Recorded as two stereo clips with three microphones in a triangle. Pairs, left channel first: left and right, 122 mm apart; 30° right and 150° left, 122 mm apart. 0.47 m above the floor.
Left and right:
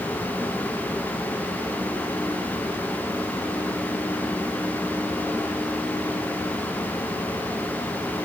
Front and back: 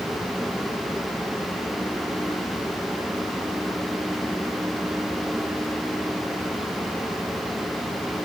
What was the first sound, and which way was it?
Only background noise.